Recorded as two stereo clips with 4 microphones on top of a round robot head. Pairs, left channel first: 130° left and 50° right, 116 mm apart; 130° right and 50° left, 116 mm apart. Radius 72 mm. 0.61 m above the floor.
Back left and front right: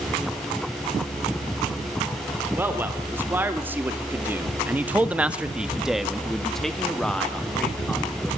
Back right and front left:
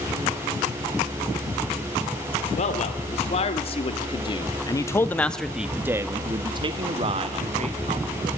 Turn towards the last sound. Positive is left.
turn(degrees=50)